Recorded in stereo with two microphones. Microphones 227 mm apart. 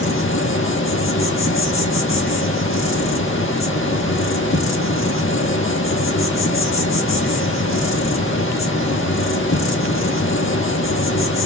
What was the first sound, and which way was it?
An insect, 60° left (ahead or behind).